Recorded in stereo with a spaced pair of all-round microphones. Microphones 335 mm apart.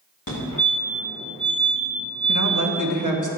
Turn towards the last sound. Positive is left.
turn(degrees=-65)  # may be behind; listen again after turning